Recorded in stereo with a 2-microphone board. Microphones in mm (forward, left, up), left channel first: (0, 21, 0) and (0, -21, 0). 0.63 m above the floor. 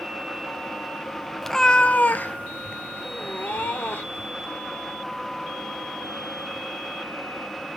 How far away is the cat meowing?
About 0.7 m.